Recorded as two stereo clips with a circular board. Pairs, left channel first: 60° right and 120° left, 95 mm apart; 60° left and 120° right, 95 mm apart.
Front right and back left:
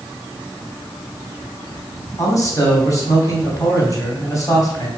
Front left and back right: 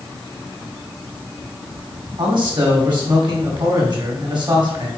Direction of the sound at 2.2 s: 105° right.